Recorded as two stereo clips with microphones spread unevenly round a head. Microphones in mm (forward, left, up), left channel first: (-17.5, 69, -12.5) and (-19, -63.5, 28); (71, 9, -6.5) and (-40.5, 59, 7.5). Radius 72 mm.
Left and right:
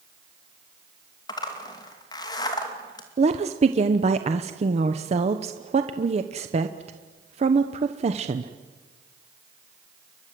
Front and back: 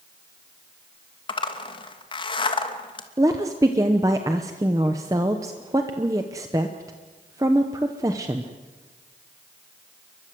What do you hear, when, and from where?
1.3 s a zipper: 25° left, 2.5 m
3.2 s a woman speaking: 135° right, 1.0 m